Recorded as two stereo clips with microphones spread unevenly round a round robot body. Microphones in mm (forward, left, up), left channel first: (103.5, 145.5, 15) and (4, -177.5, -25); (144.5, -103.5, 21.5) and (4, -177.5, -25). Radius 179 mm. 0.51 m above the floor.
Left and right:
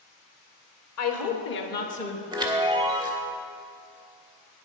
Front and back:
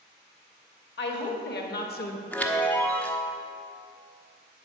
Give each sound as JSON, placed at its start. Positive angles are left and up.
{"t": 1.0, "sound": "a woman speaking", "azimuth_deg": 30, "distance_m": 1.8}
{"t": 2.3, "sound": "a chime", "azimuth_deg": -80, "distance_m": 1.1}